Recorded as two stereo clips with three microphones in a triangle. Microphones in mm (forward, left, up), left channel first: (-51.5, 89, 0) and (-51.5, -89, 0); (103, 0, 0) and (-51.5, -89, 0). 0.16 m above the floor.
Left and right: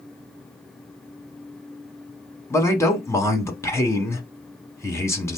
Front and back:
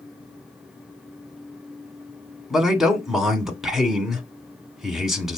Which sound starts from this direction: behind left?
A man speaking, at 2.5 s.